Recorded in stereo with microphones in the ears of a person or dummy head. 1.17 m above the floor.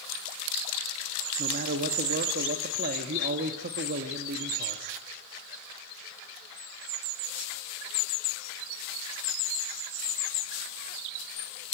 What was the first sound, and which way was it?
A man speaking, 55° right (ahead or behind).